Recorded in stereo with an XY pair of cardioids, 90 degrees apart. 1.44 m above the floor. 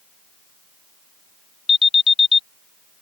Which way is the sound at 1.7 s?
40° left.